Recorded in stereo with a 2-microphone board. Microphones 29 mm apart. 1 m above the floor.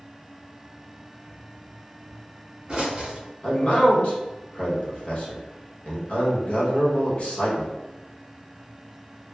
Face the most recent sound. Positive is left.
turn(degrees=45)  # may be behind; listen again after turning